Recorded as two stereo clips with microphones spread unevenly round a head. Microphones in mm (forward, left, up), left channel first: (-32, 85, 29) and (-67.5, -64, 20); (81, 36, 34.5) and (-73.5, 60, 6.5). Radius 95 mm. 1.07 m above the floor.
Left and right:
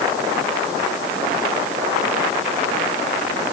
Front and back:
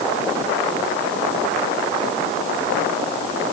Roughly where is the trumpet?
No trumpet in this recording.